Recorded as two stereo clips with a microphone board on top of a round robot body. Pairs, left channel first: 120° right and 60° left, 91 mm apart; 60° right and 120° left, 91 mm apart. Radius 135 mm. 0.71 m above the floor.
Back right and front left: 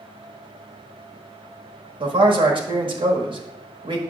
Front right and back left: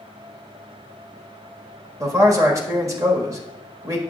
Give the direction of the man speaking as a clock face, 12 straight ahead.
10 o'clock.